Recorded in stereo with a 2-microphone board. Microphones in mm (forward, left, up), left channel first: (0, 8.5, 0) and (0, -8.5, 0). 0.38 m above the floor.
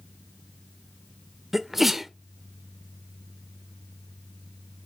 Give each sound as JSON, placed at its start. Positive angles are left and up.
{"t": 1.5, "sound": "a sneeze", "side_deg": -20, "distance_m": 0.8}